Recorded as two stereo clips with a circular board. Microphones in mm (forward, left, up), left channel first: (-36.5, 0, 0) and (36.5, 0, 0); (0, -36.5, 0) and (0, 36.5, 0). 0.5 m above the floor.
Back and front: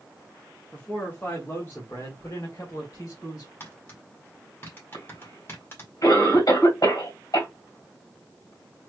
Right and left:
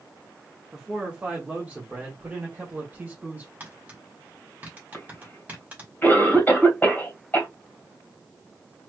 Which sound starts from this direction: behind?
A man speaking, at 0.7 s.